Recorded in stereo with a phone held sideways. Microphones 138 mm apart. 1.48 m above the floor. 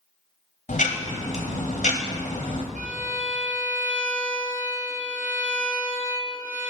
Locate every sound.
0.7 s ticking: 60° left (ahead or behind), 0.8 m
2.8 s a violin: 65° right (ahead or behind), 0.9 m